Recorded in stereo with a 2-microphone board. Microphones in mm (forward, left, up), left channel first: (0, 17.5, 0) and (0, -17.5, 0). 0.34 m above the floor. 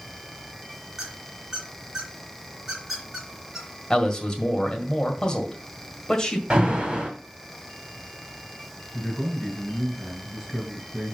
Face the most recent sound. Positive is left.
turn(degrees=-20)  # may be behind; listen again after turning